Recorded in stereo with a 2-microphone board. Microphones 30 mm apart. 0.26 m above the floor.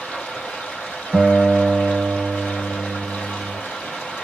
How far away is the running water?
About 2.0 m.